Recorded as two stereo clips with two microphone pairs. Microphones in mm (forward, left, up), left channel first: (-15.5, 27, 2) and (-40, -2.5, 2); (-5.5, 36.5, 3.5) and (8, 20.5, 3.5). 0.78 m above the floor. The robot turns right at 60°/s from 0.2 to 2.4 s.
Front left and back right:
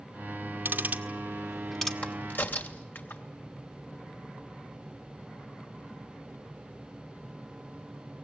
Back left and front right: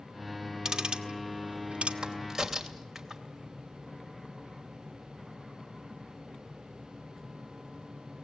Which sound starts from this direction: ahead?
A crack, at 2.0 s.